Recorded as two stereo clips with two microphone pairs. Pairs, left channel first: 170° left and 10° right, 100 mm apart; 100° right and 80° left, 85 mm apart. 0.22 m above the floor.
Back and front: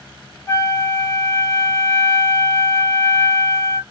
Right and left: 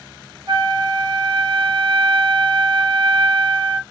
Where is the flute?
105° left, 1.0 m.